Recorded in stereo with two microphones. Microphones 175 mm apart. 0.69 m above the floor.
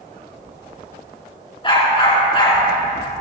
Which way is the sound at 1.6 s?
30° left (ahead or behind).